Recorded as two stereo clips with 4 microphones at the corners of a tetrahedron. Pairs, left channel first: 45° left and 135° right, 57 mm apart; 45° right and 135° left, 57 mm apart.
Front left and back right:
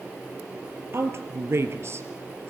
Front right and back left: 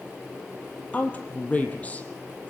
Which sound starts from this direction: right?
A woman speaking, at 0.9 s.